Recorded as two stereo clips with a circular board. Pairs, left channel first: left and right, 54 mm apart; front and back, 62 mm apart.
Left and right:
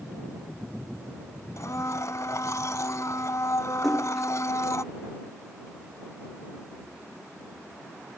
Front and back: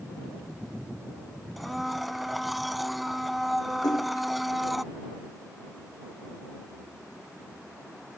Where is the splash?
Straight ahead.